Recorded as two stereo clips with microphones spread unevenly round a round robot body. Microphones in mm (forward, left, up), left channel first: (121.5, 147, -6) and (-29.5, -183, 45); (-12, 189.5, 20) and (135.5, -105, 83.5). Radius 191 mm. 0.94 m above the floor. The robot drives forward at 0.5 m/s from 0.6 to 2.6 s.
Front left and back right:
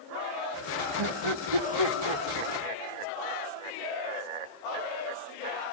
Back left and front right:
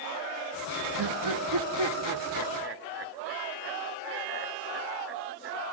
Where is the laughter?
95° right, 1.3 m; by 5.8 s 125° right, 1.5 m.